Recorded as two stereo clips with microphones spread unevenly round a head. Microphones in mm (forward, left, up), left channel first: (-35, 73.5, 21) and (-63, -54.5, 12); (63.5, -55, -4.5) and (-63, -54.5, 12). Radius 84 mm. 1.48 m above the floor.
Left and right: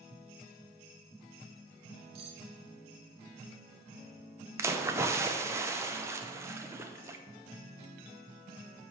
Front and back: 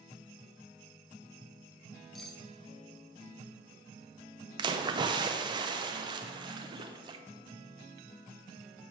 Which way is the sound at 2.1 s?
100° right.